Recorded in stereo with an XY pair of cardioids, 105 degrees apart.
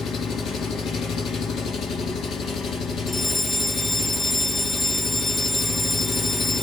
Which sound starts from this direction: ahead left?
An engine running, at 0.0 s.